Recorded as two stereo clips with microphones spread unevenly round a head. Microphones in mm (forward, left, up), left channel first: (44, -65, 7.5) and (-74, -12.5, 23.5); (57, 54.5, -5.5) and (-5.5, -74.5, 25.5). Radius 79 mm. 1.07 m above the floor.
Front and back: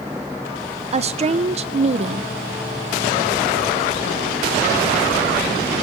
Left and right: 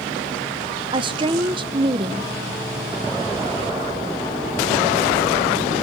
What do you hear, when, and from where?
0.9 s a woman speaking: straight behind, 0.7 m